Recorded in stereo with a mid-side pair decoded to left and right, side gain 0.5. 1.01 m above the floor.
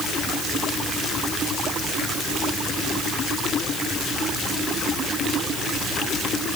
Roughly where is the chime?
I don't hear a chime.